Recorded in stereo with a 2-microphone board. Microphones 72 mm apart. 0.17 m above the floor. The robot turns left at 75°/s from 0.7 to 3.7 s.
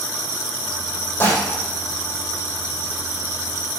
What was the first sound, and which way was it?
Dishes clattering, 30° left (ahead or behind).